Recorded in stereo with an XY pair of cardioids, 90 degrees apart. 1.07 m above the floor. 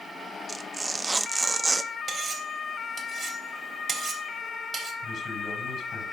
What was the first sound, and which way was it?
Tearing paper, 25° right.